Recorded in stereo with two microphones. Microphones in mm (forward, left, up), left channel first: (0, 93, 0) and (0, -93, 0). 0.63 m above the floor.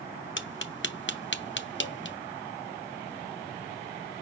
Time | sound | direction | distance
0.4 | tapping | 70° left (ahead or behind) | 0.6 m